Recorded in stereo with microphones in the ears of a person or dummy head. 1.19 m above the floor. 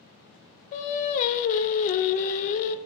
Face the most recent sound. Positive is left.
turn(degrees=40)  # may be behind; listen again after turning